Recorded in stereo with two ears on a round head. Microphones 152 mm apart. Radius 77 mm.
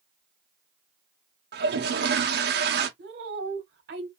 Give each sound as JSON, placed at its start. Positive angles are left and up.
{"t": 1.5, "sound": "a toilet flushing", "side_deg": -70, "distance_m": 0.9}
{"t": 3.0, "sound": "a woman speaking", "side_deg": -70, "distance_m": 1.3}